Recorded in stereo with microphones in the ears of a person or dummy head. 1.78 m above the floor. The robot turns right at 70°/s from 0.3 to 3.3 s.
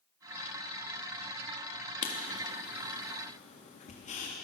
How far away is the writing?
About 3 m.